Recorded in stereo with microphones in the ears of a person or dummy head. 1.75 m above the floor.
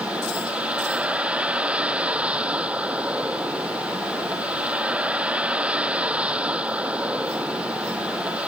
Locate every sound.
0.0 s a vehicle: centre (ahead or behind)